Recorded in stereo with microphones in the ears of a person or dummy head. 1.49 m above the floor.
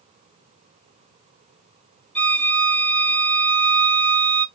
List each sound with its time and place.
2.1 s a violin: 10° left (ahead or behind), 1.4 m